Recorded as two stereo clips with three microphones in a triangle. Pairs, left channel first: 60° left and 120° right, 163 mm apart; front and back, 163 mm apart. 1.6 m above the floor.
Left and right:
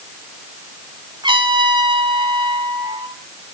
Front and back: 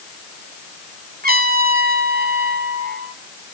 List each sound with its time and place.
1.2 s a trumpet: 175° right, 3 m